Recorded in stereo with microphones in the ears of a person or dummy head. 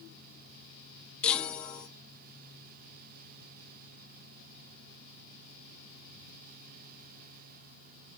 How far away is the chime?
About 1.0 m.